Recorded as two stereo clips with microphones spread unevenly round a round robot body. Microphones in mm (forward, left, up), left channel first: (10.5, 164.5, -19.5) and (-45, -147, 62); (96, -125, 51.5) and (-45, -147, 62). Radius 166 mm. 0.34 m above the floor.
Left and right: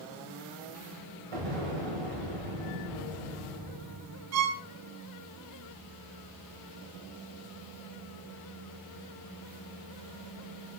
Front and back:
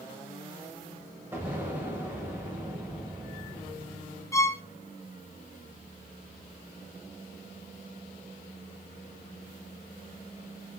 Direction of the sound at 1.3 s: 95° right.